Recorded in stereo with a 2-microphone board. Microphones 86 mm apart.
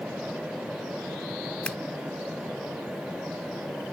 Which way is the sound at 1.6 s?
15° left (ahead or behind).